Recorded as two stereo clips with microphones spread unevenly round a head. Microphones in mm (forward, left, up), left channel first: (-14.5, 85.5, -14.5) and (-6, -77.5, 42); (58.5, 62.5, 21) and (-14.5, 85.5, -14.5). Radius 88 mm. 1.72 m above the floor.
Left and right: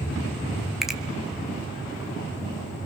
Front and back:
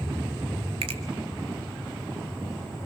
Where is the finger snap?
170° right, 1.3 m.